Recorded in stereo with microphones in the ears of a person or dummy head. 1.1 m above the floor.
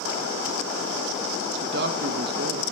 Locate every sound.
1.6 s a man speaking: 60° right (ahead or behind), 1.1 m